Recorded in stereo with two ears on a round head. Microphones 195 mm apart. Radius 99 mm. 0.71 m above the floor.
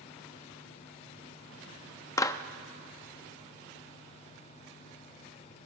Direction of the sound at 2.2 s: 15° left (ahead or behind).